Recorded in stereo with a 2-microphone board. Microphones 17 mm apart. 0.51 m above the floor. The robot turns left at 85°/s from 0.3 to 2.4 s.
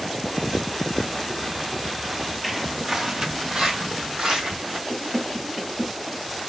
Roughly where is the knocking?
Right.